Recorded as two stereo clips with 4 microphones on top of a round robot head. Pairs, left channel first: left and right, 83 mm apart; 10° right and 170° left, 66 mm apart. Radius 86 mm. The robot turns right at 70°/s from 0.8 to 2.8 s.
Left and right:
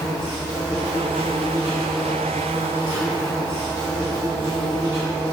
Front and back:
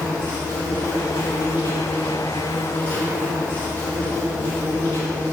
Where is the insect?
100° right, 0.7 m; by 5.3 s 40° left, 0.7 m.